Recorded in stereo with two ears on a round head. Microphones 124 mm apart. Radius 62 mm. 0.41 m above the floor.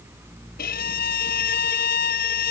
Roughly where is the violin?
Left.